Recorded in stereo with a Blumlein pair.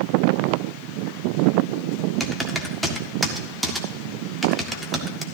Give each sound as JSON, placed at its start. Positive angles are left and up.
{"t": 2.2, "sound": "typing on a keyboard", "azimuth_deg": -5, "distance_m": 1.6}